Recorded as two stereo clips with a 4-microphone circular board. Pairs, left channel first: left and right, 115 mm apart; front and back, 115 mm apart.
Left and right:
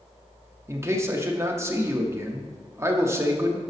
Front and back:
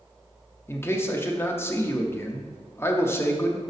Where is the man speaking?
50° right, 0.7 m.